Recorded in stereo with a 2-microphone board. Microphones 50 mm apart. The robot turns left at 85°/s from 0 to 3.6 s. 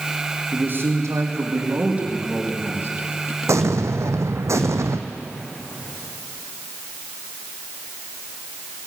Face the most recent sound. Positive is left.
turn(degrees=-75)  # may be behind; listen again after turning